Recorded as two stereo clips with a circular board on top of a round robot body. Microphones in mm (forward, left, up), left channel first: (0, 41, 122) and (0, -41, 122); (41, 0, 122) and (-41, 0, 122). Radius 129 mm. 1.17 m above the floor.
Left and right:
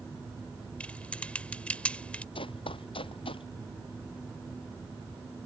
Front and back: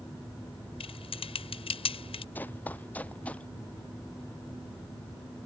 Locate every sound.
0.8 s typing on a keyboard: 15° left
2.4 s running footsteps: 70° left; by 3.5 s 75° left